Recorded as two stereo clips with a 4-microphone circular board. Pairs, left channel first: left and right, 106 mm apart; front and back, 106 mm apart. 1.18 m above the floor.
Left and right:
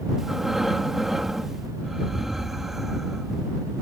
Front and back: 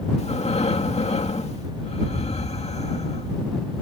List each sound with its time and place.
0.2 s breathing: straight ahead